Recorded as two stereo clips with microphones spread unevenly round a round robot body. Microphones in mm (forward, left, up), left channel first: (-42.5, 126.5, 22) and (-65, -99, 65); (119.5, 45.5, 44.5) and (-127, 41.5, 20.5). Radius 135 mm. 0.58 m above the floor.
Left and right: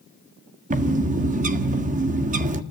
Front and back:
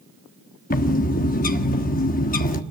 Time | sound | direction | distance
0.7 | a bird | 40° right | 1.6 m